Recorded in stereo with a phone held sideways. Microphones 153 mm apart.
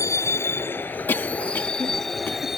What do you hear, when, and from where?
0.0 s a vehicle: 20° left (ahead or behind); by 2.6 s centre (ahead or behind)
1.1 s a cough: 15° left (ahead or behind)